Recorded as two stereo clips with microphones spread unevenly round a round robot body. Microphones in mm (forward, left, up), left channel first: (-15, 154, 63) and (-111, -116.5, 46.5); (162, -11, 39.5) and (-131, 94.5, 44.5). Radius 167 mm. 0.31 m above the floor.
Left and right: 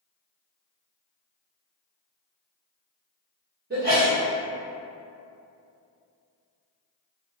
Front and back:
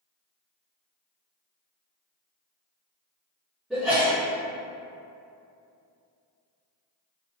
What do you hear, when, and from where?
3.7 s a sneeze: 115° right, 1.3 m